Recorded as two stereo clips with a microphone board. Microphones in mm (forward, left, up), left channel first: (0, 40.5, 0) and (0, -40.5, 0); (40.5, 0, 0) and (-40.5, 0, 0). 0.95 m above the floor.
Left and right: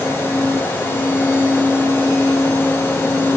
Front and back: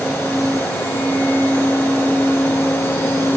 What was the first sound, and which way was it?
Only background noise.